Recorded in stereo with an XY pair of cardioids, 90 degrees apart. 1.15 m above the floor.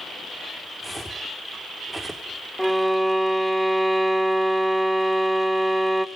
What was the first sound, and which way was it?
Footsteps, 10° right.